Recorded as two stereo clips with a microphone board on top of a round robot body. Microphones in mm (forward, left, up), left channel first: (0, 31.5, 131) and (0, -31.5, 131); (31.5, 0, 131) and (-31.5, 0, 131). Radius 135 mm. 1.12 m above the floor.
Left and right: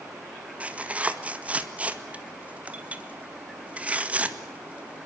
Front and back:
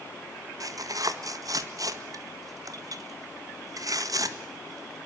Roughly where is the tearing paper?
Behind.